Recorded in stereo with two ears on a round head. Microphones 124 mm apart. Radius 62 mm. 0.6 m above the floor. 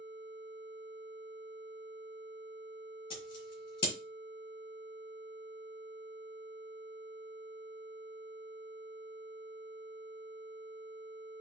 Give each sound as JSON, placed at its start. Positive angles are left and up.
{"t": 3.1, "sound": "scissors", "side_deg": 40, "distance_m": 5.5}